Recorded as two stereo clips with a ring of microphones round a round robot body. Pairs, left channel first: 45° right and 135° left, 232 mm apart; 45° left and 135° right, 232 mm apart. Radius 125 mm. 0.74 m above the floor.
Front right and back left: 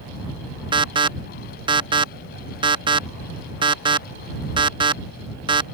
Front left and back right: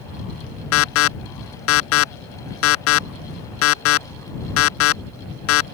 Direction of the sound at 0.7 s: 65° left.